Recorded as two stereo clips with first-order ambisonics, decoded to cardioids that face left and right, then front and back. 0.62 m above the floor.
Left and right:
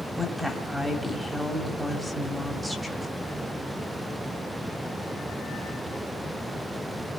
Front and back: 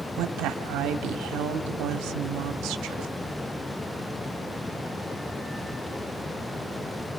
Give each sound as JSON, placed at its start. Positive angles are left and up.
{"t": 0.2, "sound": "a woman speaking", "azimuth_deg": 175, "distance_m": 1.9}